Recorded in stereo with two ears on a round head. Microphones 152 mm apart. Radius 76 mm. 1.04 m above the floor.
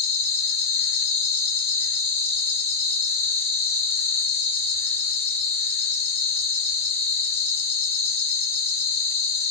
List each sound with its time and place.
0.0 s an insect: 35° left (ahead or behind), 0.8 m